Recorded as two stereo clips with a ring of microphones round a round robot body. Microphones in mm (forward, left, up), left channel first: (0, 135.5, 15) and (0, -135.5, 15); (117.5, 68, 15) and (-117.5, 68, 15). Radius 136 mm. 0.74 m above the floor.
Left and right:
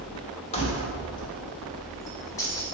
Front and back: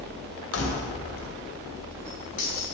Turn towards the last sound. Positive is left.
turn(degrees=10)